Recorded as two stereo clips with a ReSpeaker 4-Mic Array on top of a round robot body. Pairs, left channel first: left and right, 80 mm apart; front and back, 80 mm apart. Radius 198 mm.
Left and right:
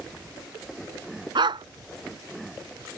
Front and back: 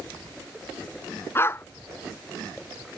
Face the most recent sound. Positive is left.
turn(degrees=-65)